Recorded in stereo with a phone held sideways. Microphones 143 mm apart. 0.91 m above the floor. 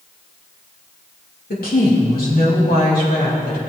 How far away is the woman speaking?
About 2.5 m.